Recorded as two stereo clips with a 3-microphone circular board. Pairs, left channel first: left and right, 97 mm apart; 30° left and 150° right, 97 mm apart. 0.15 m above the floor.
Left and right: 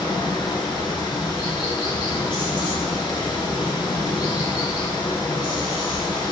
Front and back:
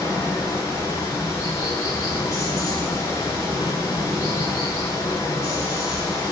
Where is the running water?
75° left, 1.0 m.